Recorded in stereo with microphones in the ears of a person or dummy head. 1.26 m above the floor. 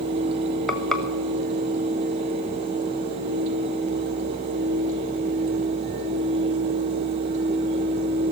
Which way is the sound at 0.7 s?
Centre (ahead or behind).